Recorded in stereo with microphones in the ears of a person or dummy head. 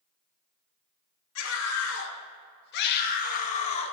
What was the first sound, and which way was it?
A scream, 80° left.